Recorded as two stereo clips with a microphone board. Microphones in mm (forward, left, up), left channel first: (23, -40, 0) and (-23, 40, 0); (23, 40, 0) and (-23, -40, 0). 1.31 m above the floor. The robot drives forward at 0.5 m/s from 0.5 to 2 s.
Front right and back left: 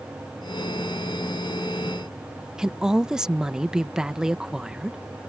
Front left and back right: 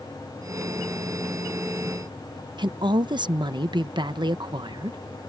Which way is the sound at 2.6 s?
155° right.